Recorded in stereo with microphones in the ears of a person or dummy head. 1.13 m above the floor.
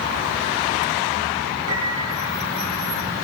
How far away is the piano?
About 7.5 m.